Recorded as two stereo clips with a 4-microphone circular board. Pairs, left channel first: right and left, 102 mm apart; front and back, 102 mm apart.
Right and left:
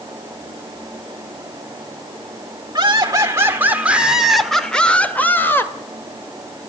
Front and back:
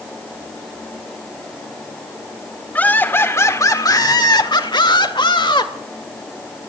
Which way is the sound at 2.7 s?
65° left.